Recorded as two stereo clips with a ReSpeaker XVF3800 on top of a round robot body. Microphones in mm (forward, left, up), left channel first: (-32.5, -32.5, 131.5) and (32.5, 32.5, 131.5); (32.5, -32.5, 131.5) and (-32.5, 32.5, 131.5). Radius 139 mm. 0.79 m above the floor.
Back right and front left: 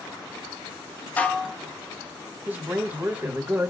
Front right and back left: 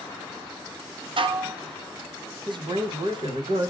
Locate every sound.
1.2 s dishes clattering: 155° left, 0.8 m
2.5 s a man speaking: 115° left, 1.3 m